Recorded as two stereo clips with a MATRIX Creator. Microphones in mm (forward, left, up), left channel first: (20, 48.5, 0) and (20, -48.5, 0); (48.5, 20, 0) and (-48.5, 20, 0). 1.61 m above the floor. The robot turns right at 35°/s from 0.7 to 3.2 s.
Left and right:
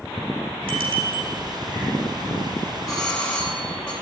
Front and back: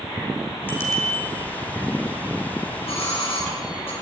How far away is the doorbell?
About 9.5 m.